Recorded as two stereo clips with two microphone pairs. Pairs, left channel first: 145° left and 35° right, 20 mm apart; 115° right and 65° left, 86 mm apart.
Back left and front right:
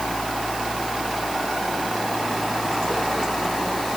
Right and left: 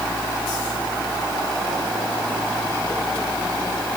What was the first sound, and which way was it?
Only background noise.